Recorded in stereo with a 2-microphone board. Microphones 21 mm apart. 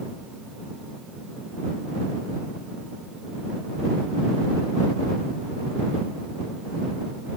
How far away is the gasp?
I don't hear a gasp.